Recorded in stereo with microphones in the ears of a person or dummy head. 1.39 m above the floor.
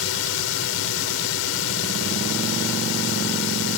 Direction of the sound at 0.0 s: 70° left (ahead or behind).